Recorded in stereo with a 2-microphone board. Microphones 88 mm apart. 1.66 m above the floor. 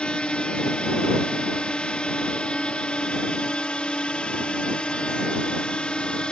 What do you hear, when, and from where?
0.0 s a drone: 10° left (ahead or behind)